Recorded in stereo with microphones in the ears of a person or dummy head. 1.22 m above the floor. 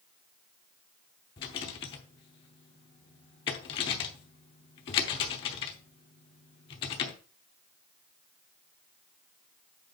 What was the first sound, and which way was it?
A rattle, 30° left (ahead or behind).